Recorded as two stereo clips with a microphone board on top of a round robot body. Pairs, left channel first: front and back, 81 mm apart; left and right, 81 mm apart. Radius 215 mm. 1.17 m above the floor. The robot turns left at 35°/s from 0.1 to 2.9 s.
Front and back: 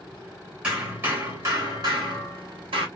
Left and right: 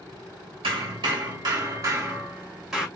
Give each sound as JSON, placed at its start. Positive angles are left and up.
{"t": 0.6, "sound": "hammering", "azimuth_deg": -100, "distance_m": 1.3}